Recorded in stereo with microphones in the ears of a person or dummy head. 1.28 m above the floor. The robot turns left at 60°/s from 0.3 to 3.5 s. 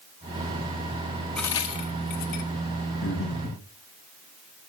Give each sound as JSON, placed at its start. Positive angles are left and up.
{"t": 1.4, "sound": "a crack", "side_deg": 5, "distance_m": 1.3}
{"t": 3.0, "sound": "breathing", "side_deg": 70, "distance_m": 5.5}